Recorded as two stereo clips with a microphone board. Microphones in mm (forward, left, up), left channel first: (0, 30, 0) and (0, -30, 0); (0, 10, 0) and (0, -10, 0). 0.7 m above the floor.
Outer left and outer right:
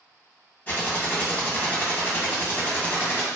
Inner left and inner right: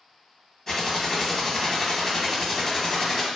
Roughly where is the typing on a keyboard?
Left.